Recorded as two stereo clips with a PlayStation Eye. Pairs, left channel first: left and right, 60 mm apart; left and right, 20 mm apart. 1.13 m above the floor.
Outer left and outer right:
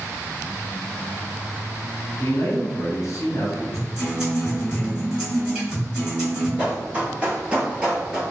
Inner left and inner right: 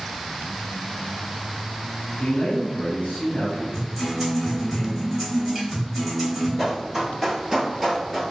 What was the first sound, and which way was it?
A man speaking, 70° left (ahead or behind).